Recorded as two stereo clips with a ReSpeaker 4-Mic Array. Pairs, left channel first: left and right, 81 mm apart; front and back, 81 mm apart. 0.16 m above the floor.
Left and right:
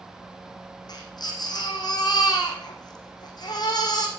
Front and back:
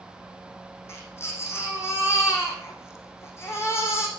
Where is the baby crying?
55° left, 4 m.